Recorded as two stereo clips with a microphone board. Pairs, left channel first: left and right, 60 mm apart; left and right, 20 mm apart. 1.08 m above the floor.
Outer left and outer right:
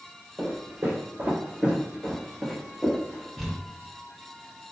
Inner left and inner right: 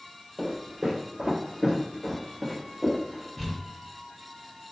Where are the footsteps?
40° right (ahead or behind), 1.5 m; by 3.3 s 25° left (ahead or behind), 1.1 m.